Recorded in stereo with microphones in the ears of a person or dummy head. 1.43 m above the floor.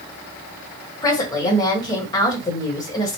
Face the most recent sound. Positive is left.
turn(degrees=20)  # may be behind; listen again after turning